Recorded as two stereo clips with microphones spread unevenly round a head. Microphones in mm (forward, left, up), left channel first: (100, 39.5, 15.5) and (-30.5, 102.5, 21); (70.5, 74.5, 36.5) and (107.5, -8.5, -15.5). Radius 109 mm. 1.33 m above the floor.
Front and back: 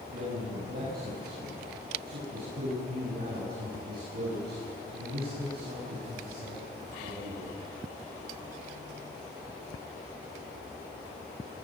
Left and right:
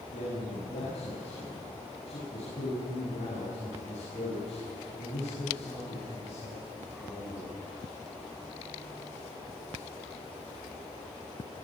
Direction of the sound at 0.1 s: 140° left.